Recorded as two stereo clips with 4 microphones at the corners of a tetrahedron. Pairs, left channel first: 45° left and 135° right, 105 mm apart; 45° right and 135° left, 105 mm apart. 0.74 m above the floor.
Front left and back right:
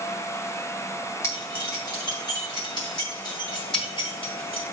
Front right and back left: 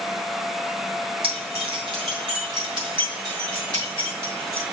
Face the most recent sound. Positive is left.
turn(degrees=80)